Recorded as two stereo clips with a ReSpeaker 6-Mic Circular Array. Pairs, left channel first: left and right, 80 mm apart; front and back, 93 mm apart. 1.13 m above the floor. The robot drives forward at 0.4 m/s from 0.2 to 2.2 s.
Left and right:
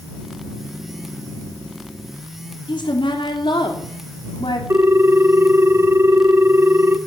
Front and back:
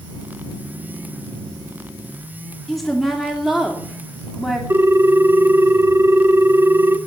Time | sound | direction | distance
2.7 | a woman speaking | 90° left | 3 m
4.7 | a ringtone | 130° right | 0.7 m